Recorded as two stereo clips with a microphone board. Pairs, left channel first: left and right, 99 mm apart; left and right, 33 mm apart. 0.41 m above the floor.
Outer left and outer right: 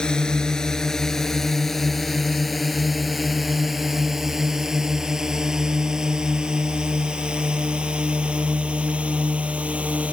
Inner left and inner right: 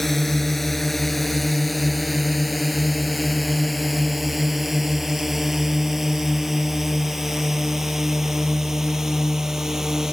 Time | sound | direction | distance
0.0 | a drone | 5° left (ahead or behind) | ?